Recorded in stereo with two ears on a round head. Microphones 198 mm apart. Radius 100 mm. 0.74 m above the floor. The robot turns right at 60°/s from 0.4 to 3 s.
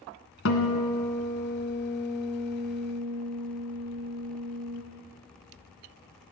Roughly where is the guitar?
Ahead left.